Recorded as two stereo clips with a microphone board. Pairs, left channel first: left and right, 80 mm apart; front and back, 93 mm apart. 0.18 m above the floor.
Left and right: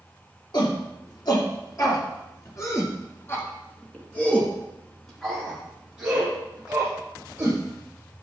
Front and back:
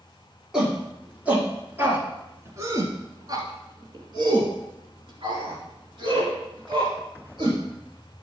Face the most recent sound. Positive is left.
turn(degrees=-155)